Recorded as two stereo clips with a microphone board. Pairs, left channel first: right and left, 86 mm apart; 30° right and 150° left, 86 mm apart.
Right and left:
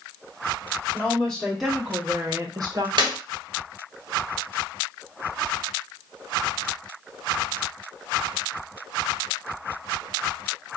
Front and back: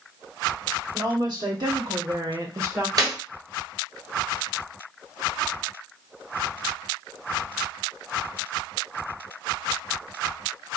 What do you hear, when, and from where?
0.9 s a woman speaking: 170° right, 1.9 m; by 2.9 s 85° left, 0.9 m
3.0 s a clap: 110° left, 1.4 m